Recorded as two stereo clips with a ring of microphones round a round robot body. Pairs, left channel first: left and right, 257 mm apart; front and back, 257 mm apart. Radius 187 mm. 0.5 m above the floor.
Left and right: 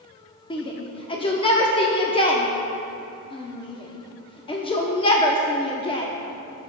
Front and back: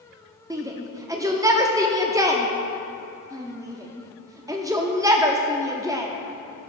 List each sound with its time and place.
0.5 s a shout: 120° left, 0.8 m